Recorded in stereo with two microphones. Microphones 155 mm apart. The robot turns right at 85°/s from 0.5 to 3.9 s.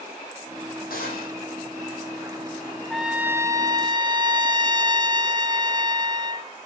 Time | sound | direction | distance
0.9 | a gunshot | 75° left | 9 m
2.9 | a trumpet | 175° left | 1.0 m